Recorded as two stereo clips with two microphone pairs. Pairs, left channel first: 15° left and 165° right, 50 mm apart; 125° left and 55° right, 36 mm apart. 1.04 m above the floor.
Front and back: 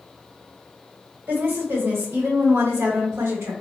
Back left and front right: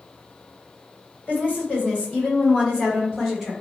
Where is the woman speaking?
160° left, 1.6 m; by 3.5 s 145° right, 1.4 m.